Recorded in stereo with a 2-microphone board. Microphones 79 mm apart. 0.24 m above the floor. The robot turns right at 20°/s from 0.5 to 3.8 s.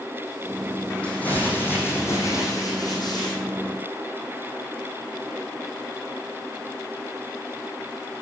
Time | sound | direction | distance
1.0 | crumpling | 15° left | 5 m